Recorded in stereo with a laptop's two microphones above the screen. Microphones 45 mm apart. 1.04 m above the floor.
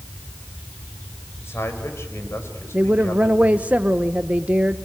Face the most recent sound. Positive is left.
turn(degrees=-30)  # may be behind; listen again after turning